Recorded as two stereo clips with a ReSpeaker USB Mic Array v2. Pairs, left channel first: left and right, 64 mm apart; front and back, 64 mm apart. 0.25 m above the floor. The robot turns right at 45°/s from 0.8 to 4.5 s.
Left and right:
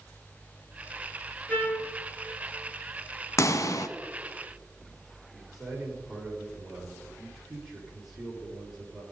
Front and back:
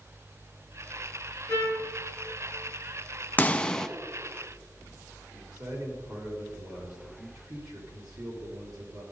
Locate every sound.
1.5 s a trumpet: 25° left, 4 m; by 1.9 s 45° left, 4 m
3.4 s a pop: 60° left, 0.7 m; by 3.9 s 80° left, 0.7 m
5.3 s a man speaking: 175° right, 5 m